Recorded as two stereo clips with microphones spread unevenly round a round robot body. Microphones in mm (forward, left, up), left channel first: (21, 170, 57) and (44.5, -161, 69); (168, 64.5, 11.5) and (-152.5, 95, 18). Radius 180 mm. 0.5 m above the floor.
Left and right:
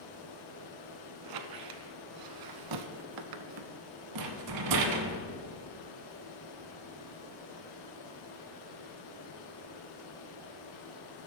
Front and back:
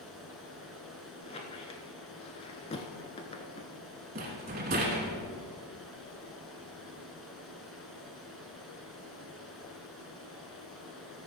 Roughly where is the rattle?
Behind right.